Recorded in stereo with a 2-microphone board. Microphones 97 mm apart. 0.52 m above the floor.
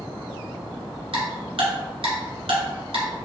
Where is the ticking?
80° right, 1.6 m.